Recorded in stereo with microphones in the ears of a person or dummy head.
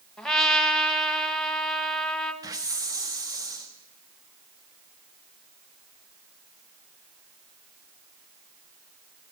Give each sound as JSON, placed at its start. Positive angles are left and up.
{"t": 0.2, "sound": "a trumpet", "side_deg": 5, "distance_m": 1.0}
{"t": 2.4, "sound": "a hiss", "side_deg": -15, "distance_m": 1.2}